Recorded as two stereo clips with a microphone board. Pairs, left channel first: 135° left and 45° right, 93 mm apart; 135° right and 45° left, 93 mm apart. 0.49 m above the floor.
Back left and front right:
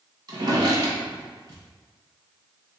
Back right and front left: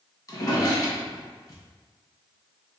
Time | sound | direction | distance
0.3 | a drawer | 85° right | 1.2 m